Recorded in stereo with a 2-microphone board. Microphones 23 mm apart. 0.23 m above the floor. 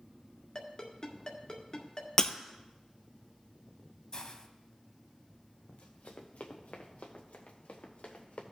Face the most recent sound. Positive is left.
turn(degrees=80)